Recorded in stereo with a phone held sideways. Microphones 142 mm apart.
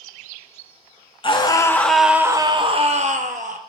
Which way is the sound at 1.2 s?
35° left (ahead or behind).